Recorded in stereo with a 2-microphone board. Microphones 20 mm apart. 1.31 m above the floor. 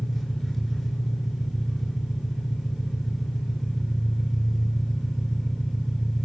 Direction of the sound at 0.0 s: 5° left (ahead or behind).